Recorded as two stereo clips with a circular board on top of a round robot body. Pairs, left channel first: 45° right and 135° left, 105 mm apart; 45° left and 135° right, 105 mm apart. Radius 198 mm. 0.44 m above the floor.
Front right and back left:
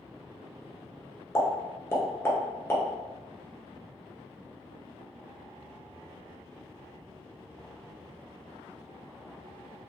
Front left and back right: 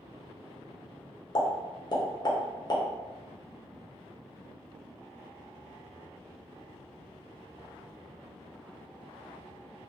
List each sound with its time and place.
1.4 s a pop: 15° left, 0.9 m